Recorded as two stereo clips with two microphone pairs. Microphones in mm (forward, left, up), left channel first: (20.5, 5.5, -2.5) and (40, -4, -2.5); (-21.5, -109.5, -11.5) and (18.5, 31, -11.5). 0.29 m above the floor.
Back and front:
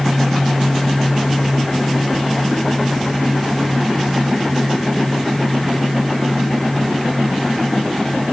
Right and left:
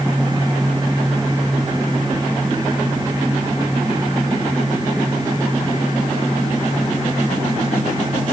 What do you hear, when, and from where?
Only background noise.